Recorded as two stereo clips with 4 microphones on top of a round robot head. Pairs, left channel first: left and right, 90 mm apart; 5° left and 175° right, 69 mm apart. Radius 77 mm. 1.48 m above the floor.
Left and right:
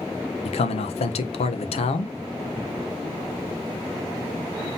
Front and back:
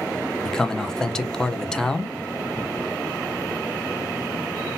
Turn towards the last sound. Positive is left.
turn(degrees=85)